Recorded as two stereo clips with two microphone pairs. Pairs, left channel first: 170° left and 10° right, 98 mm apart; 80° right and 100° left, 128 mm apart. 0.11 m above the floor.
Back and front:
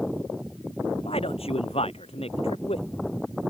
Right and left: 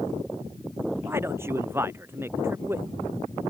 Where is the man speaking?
170° left.